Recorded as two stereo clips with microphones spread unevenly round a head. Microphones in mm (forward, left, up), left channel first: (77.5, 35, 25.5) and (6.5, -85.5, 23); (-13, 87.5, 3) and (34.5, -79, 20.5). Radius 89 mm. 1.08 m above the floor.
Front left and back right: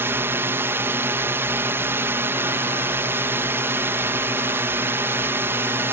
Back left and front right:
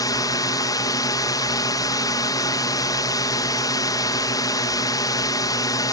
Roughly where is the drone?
Behind.